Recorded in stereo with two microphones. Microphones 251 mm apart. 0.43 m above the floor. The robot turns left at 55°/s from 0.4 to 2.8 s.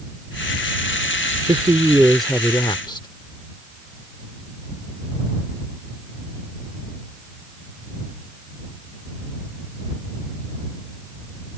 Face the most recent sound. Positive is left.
turn(degrees=145)